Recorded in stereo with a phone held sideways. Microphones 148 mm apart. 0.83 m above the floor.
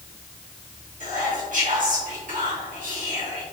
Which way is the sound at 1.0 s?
65° right (ahead or behind).